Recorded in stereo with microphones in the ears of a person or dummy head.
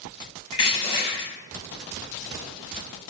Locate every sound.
0.5 s crushing: 20° left (ahead or behind), 0.6 m